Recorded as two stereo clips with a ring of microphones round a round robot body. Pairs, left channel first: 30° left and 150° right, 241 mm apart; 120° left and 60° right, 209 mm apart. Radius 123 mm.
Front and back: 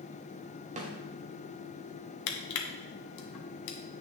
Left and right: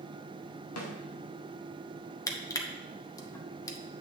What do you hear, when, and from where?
0.8 s a snare drum: 150° left, 1.4 m
2.3 s crushing: 45° left, 1.1 m